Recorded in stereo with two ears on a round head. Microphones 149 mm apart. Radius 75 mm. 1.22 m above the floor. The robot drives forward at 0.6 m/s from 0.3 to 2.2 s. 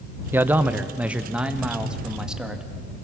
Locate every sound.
0.3 s a man speaking: 15° right (ahead or behind), 0.7 m; by 2.6 s 5° right (ahead or behind), 1.8 m